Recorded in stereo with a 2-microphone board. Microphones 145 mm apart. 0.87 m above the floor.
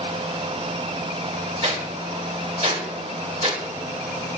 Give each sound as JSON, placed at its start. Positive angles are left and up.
{"t": 1.6, "sound": "a whoosh", "side_deg": -45, "distance_m": 1.5}